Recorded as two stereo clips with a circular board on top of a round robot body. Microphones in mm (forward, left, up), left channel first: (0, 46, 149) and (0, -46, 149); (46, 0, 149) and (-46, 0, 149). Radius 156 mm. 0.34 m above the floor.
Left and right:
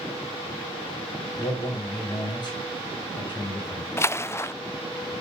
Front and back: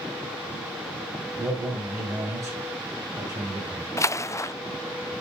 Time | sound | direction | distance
1.4 | a man speaking | 125° left | 2.5 m
4.0 | a splash | 40° left | 0.6 m